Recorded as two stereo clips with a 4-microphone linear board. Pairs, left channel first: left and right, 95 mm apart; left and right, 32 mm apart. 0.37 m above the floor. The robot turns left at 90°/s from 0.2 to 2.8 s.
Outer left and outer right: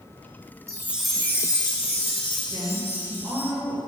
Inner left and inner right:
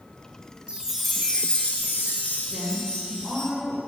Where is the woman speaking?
15° right (ahead or behind), 1.3 m; by 3.8 s 5° right (ahead or behind), 1.3 m.